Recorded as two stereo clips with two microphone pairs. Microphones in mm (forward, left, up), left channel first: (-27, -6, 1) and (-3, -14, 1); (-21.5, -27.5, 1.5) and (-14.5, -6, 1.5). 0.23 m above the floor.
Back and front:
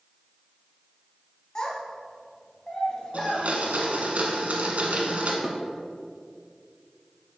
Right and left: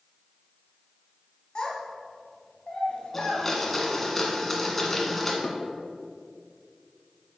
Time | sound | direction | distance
1.6 | a child speaking | 140° right | 1.1 m
3.1 | a blender | 35° right | 1.3 m
5.4 | dishes clattering | 75° right | 1.1 m